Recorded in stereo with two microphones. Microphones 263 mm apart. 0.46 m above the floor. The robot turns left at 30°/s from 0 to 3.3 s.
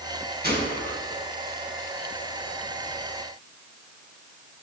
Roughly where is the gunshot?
Right.